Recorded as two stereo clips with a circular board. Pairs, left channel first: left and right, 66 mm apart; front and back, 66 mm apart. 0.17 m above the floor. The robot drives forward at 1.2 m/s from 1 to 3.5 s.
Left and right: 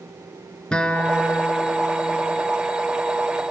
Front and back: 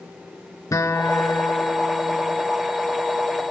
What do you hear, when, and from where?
0.7 s a guitar: 15° left, 2.5 m; by 2.4 s 60° left, 1.6 m